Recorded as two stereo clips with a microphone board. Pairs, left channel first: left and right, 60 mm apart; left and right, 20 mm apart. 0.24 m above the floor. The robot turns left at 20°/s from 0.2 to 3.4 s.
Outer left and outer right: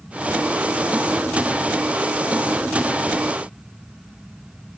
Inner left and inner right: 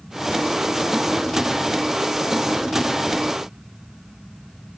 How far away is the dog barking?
No dog barking in this recording.